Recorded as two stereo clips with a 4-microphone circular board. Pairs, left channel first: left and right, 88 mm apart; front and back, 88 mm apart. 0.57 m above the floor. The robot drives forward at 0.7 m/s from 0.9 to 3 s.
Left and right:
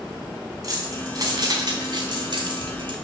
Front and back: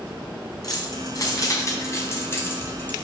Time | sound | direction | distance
0.6 | keys jangling | 45° right | 3 m